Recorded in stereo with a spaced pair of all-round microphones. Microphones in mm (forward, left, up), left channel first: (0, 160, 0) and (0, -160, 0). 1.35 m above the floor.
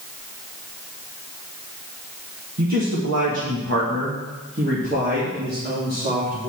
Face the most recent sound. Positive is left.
turn(degrees=-25)  # may be behind; listen again after turning